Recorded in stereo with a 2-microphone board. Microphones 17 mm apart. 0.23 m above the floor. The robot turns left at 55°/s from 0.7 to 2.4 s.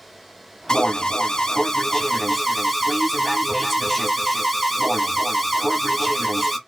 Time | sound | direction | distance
0.7 | an alarm | 105° left | 1.1 m